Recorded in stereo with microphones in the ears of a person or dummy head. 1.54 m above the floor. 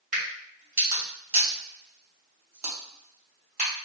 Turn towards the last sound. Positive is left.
turn(degrees=-45)  # may be behind; listen again after turning